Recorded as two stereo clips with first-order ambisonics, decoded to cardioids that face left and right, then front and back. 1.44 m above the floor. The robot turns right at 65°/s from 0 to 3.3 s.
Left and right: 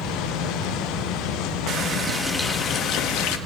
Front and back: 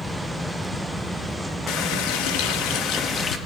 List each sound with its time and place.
1.7 s a running tap: 40° right, 1.3 m; by 3.4 s 65° left, 1.3 m